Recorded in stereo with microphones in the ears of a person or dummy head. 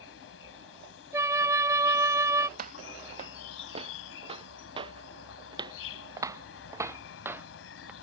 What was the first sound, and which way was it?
An insect, 75° left (ahead or behind).